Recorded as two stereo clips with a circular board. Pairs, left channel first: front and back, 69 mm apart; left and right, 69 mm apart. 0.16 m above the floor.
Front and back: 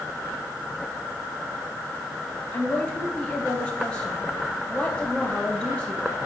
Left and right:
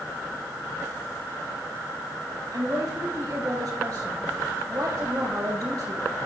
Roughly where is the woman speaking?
Right.